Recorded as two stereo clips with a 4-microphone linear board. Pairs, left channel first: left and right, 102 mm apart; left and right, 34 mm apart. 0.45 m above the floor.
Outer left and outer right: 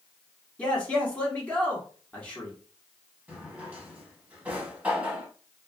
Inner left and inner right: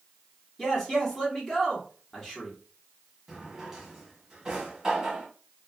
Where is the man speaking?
15° left (ahead or behind), 1.0 m.